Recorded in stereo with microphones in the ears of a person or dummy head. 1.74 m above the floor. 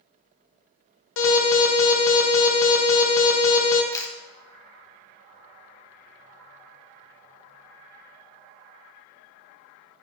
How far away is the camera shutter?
About 0.7 m.